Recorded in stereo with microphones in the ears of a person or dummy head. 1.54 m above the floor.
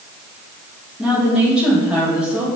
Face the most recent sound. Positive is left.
turn(degrees=-5)  # may be behind; listen again after turning